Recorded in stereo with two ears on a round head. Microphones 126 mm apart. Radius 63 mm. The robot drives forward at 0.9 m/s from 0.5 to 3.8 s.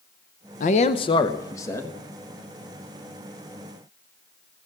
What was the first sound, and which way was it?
A man speaking, 65° left (ahead or behind).